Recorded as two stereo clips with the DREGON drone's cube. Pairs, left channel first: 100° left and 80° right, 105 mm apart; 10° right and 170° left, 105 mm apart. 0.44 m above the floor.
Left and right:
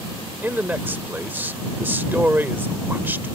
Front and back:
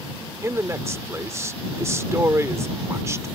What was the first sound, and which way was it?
A man speaking, 140° right.